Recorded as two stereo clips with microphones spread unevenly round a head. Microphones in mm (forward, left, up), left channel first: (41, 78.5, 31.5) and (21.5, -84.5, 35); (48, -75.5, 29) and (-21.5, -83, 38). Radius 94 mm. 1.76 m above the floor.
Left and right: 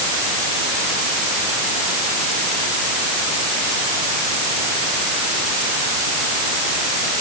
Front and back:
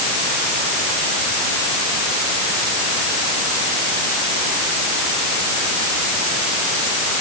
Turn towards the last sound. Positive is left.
No sound to turn to.